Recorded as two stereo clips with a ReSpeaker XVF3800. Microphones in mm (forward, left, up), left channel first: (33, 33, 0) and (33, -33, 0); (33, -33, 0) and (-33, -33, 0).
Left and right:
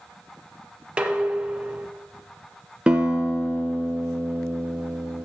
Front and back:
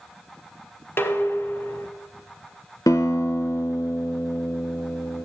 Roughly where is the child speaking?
No child speaking in this recording.